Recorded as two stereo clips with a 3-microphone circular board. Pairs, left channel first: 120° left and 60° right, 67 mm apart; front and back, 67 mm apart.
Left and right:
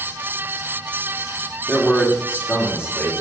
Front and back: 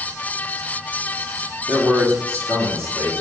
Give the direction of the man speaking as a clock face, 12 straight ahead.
6 o'clock.